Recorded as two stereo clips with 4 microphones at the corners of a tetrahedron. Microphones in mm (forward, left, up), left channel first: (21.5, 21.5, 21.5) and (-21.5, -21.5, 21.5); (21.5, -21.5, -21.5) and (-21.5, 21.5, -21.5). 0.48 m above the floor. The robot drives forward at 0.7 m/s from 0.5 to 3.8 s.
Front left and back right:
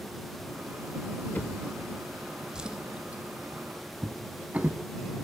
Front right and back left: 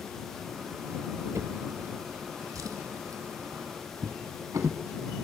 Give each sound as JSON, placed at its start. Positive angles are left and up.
{"t": 1.4, "sound": "a drawer", "azimuth_deg": 105, "distance_m": 0.7}